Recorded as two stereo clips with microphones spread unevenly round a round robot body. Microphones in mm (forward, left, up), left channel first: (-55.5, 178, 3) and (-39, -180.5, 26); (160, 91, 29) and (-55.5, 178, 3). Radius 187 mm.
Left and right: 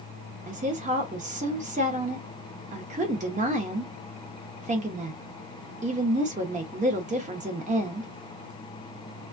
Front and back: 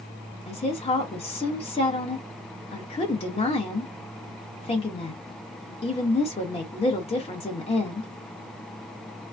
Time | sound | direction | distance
0.5 | a woman speaking | 50° right | 0.8 m